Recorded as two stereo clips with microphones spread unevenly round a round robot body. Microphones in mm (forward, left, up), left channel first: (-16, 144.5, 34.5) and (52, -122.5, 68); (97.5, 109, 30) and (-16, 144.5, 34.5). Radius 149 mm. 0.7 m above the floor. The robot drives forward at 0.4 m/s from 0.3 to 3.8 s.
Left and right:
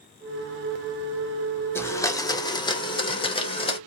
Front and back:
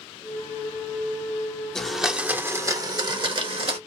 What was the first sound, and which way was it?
A blender, 55° left.